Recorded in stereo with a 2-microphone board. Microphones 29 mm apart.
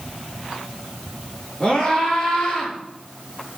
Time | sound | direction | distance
1.6 | a scream | 30° left (ahead or behind) | 8.5 m